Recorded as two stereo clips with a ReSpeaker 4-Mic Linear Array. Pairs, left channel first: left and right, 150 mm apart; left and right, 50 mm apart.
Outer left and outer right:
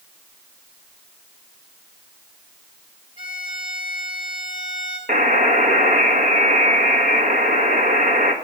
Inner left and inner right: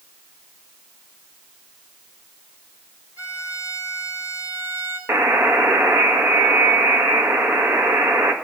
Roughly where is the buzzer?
Right.